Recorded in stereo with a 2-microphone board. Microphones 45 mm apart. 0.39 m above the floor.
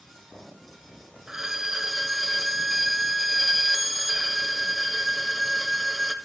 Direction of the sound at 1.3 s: 10° right (ahead or behind).